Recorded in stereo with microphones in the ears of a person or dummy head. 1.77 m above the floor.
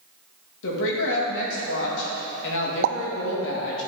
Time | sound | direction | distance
0.6 | a woman speaking | 70° left (ahead or behind) | 2.5 m
2.8 | a pop | 60° right (ahead or behind) | 0.6 m